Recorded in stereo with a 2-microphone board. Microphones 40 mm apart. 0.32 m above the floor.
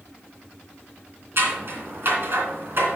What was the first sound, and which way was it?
Scissors, 55° right (ahead or behind).